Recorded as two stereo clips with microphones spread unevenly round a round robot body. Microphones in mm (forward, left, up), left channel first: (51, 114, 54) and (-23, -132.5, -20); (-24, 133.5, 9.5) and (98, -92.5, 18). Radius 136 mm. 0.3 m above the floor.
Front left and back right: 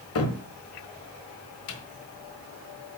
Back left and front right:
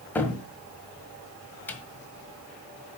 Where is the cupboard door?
40° left, 1.6 m.